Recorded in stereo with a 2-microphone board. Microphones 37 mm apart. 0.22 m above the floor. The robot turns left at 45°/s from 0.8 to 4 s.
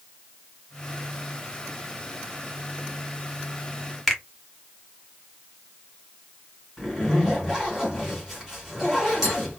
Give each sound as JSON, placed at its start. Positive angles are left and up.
{"t": 4.1, "sound": "a finger snap", "side_deg": 5, "distance_m": 0.8}
{"t": 6.8, "sound": "a zipper", "side_deg": -5, "distance_m": 1.7}